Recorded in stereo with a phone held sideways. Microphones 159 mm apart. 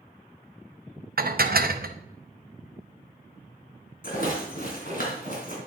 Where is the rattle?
65° left (ahead or behind), 3 m.